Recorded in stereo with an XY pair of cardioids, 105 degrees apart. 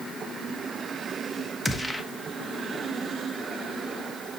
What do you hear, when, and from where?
1.6 s a gunshot: straight ahead, 1.2 m